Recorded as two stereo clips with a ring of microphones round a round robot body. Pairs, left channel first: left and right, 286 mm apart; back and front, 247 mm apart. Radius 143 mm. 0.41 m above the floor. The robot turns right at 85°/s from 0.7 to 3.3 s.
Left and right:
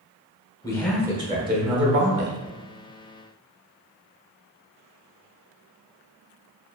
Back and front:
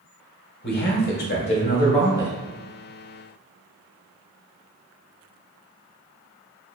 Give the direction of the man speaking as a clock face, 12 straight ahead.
7 o'clock.